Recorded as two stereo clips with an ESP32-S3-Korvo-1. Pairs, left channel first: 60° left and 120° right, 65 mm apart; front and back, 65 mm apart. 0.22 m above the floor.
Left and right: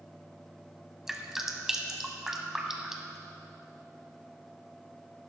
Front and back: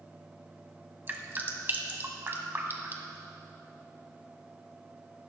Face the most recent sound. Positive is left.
turn(degrees=160)